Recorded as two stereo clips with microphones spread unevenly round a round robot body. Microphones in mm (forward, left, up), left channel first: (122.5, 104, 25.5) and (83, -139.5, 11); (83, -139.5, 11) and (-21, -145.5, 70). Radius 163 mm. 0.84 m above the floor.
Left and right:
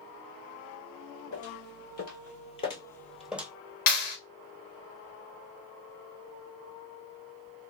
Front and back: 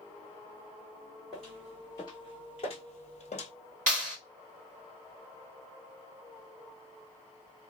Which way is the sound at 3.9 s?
130° left.